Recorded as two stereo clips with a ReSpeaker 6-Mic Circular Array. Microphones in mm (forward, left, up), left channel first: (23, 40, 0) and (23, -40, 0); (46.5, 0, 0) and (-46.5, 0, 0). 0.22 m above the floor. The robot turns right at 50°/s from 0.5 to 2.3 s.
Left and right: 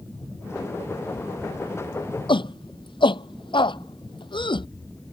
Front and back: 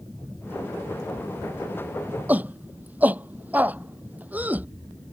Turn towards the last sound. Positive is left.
turn(degrees=105)